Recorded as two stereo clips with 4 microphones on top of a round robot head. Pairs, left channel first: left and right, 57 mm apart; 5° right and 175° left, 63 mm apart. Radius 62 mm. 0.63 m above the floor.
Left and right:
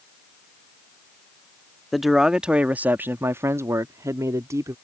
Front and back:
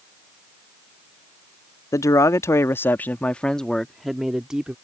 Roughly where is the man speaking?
Ahead.